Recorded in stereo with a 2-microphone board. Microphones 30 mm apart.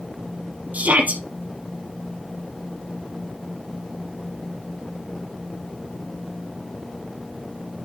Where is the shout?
70° right (ahead or behind), 3.5 m.